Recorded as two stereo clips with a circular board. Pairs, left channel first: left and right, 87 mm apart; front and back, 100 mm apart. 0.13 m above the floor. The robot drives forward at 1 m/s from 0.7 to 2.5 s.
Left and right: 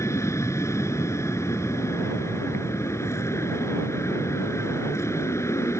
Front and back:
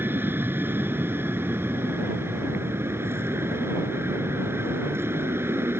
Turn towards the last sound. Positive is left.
turn(degrees=125)